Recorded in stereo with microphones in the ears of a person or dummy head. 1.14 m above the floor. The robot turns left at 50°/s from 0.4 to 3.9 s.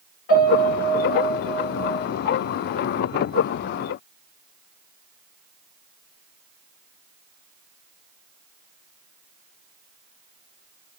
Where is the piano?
115° left, 1.7 m; by 2.1 s 35° left, 1.7 m.